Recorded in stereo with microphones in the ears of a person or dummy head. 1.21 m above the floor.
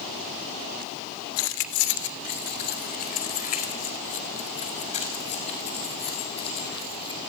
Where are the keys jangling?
75° left (ahead or behind), 2.5 m; by 7.2 s 25° left (ahead or behind), 7.5 m.